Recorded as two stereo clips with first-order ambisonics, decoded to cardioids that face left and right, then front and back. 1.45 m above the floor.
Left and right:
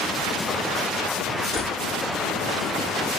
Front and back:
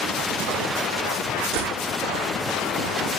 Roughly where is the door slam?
Behind.